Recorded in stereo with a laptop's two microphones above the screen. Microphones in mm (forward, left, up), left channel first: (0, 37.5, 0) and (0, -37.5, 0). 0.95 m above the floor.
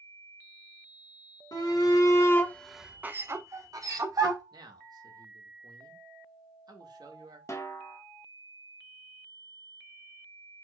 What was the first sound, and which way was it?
A shout, 60° left (ahead or behind).